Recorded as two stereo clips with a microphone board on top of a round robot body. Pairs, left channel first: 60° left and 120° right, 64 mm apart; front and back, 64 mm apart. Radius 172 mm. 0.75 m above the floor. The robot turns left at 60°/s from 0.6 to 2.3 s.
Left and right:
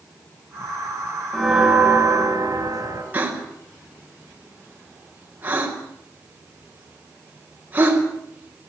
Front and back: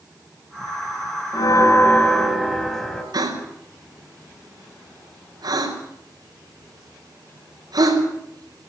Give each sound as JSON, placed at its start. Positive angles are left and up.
{"t": 1.3, "sound": "a bell", "azimuth_deg": -25, "distance_m": 3.0}
{"t": 3.1, "sound": "a gasp", "azimuth_deg": 175, "distance_m": 5.0}